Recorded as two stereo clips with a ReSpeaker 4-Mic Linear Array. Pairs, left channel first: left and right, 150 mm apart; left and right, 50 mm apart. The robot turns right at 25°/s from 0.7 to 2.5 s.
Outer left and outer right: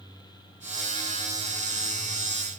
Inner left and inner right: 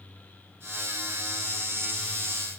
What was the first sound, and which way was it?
Only background noise.